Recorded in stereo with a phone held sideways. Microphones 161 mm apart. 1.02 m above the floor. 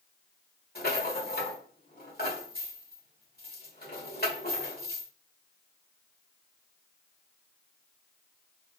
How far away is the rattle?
About 1.5 m.